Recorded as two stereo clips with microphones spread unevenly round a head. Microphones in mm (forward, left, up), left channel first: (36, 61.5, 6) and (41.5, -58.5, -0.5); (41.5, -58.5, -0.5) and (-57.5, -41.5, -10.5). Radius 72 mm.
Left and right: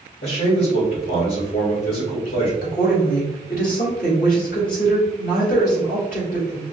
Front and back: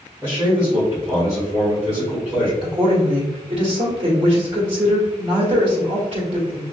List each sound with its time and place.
0.2 s a man speaking: 100° left, 1.9 m
2.6 s a woman speaking: 120° left, 1.7 m